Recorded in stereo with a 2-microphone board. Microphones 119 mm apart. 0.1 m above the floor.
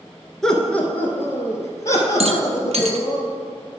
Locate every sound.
0.4 s laughter: 5° left (ahead or behind), 1.2 m; by 3.2 s 30° left (ahead or behind), 3 m
2.2 s a rattle: 60° right (ahead or behind), 0.7 m